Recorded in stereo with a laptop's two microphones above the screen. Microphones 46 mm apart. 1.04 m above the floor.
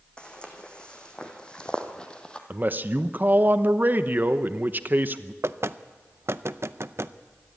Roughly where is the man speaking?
Right.